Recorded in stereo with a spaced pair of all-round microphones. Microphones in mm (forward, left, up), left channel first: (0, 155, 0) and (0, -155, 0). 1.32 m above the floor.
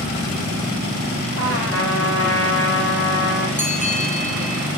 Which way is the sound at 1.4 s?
45° left (ahead or behind).